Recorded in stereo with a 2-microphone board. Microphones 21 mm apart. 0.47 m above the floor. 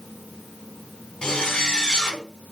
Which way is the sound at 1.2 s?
30° left (ahead or behind).